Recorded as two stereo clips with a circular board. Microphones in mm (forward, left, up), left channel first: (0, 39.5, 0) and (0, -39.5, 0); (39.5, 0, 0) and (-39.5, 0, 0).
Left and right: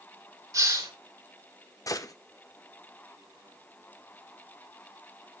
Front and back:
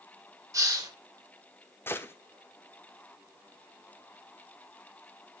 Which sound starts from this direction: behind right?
A hiss, at 0.5 s.